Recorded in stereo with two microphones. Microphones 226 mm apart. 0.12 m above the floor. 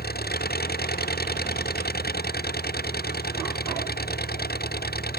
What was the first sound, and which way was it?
An engine running, 45° left (ahead or behind).